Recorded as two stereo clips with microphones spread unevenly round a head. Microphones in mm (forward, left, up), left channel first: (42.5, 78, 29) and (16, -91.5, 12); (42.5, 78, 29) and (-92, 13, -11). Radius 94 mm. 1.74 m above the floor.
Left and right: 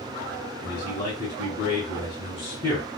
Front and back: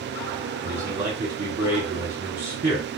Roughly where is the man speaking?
Behind left.